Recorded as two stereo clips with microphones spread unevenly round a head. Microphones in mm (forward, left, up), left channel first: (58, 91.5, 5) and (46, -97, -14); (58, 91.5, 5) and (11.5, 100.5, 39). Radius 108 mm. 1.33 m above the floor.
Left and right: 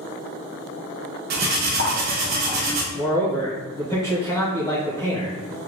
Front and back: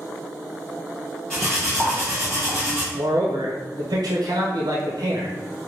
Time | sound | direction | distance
1.3 | cutlery clinking | 130° right | 0.6 m
2.9 | a man speaking | 165° left | 0.9 m